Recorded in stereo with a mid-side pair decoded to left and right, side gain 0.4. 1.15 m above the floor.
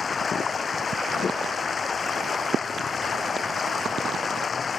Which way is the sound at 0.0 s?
45° left.